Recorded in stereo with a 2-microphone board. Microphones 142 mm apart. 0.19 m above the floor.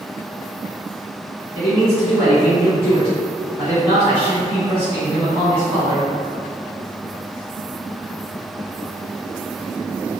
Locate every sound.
1.5 s a man speaking: 15° right (ahead or behind), 1.6 m